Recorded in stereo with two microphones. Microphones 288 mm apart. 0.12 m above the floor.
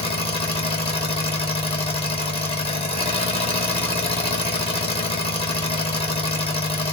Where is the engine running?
20° left (ahead or behind), 1.1 m.